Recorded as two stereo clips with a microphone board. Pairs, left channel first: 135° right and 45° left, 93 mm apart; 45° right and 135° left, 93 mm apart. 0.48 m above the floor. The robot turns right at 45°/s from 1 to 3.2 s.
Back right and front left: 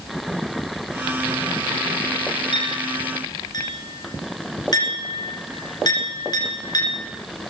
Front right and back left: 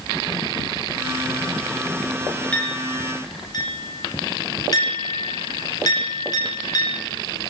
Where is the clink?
120° right, 3.5 m; by 7.0 s 90° right, 3.5 m.